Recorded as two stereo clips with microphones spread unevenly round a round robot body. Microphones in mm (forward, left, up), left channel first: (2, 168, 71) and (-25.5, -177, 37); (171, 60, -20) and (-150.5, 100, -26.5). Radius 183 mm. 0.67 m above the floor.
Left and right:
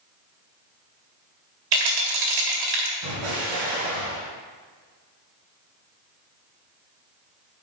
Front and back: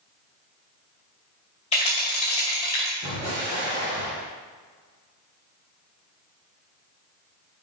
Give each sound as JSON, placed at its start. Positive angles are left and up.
{"t": 1.7, "sound": "a rattle", "azimuth_deg": -85, "distance_m": 2.0}
{"t": 3.0, "sound": "an explosion", "azimuth_deg": -115, "distance_m": 3.5}